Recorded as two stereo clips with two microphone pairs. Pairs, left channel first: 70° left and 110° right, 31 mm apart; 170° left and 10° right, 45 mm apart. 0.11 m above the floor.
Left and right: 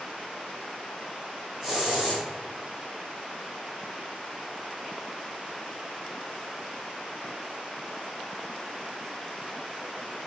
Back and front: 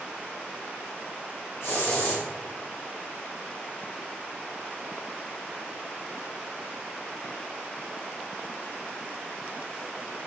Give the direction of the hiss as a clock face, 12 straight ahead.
6 o'clock.